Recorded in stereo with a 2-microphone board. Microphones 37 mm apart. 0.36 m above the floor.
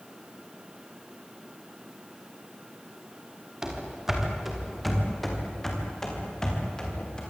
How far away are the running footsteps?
About 5.5 m.